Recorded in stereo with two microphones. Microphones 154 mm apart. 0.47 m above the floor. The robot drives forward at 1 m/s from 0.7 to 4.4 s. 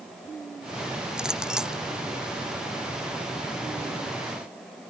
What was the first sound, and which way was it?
A clink, 5° right (ahead or behind).